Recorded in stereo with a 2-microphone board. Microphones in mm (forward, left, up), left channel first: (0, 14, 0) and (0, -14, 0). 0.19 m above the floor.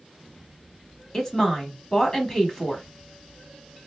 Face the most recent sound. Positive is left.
turn(degrees=20)  # may be behind; listen again after turning